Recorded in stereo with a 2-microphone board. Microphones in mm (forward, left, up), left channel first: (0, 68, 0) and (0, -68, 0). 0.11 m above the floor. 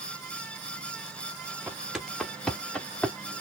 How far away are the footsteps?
About 0.8 m.